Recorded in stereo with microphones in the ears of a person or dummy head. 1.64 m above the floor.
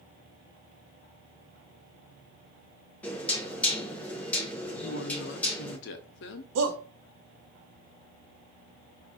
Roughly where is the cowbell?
No cowbell in this recording.